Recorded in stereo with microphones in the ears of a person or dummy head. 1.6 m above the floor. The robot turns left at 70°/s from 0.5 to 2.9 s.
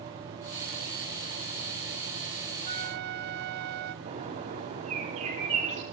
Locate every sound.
2.6 s a flute: 35° right (ahead or behind), 0.6 m; by 4.0 s 50° right (ahead or behind), 0.6 m
4.0 s a bird: 35° right (ahead or behind), 3 m